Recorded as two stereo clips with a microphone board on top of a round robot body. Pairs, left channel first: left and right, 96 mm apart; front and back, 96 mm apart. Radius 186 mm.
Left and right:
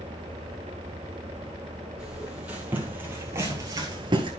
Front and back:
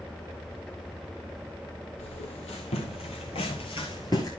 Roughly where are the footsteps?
Ahead.